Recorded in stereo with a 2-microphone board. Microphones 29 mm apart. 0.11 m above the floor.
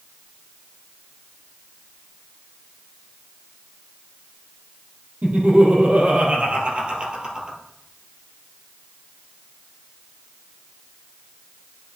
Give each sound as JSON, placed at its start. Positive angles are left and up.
{"t": 5.2, "sound": "laughter", "side_deg": -55, "distance_m": 2.5}